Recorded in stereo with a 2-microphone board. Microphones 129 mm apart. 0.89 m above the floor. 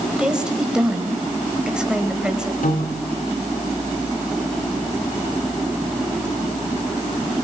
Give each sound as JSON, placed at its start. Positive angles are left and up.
{"t": 0.2, "sound": "a woman speaking", "side_deg": -5, "distance_m": 4.5}
{"t": 2.6, "sound": "a piano", "side_deg": 75, "distance_m": 3.0}